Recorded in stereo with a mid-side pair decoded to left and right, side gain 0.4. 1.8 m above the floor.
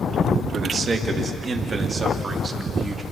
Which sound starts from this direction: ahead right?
A man speaking, at 0.5 s.